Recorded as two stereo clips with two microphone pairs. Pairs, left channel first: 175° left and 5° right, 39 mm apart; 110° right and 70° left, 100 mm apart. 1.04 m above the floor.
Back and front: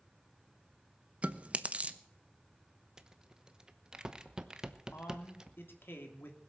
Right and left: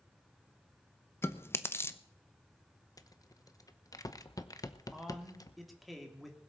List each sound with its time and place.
1.2 s chewing: 50° right, 0.8 m
3.0 s a rattle: 70° right, 0.9 m
4.9 s a man speaking: 160° left, 3 m